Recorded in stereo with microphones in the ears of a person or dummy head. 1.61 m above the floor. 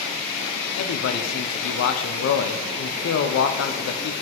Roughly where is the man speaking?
Left.